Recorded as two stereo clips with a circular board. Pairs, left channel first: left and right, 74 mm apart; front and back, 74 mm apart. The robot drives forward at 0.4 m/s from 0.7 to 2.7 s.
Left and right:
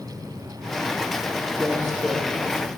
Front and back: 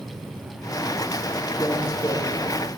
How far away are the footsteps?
About 2.5 m.